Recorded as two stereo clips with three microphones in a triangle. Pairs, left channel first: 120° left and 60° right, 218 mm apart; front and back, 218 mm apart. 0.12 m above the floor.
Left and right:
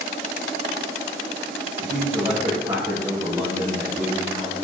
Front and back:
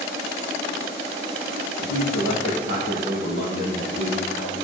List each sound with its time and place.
1.8 s a man speaking: 5° right, 3 m; by 4.5 s 25° left, 2.5 m